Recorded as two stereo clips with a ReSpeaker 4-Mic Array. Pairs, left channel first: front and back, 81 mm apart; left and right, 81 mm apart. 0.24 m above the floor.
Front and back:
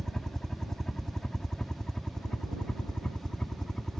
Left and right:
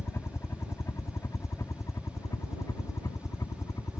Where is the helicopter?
80° left.